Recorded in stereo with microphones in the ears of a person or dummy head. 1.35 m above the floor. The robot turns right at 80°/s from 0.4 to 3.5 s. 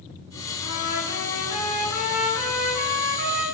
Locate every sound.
0.6 s a trumpet: 70° left, 7 m; by 3.4 s 65° right, 7 m